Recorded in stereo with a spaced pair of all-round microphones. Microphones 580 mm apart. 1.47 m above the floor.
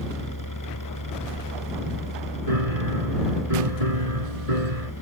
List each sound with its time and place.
0.0 s a machine running: 35° left (ahead or behind)
2.5 s a piano: 85° right